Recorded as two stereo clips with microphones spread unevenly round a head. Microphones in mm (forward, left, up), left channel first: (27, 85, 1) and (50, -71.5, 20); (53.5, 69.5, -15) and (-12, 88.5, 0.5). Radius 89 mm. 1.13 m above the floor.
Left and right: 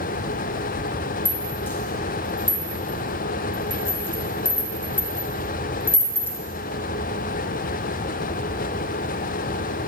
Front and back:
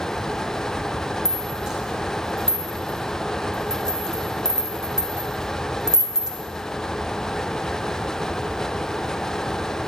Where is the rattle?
170° left, 0.5 m.